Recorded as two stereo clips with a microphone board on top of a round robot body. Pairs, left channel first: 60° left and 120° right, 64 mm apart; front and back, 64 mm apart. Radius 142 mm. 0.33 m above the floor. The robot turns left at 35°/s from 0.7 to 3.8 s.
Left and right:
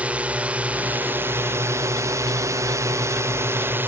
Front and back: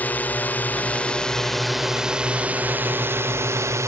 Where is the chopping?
I don't hear chopping.